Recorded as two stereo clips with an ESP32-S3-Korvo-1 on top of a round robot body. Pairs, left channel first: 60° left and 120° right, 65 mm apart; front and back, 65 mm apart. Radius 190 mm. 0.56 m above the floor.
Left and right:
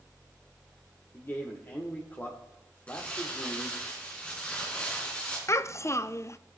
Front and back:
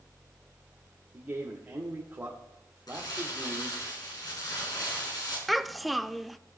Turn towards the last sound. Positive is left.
turn(degrees=90)